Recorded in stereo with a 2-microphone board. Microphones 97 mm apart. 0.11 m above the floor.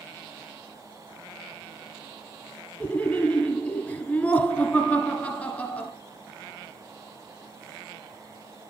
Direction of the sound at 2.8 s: 15° left (ahead or behind).